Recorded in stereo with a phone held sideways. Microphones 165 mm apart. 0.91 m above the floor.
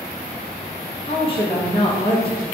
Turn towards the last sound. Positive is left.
turn(degrees=35)  # may be behind; listen again after turning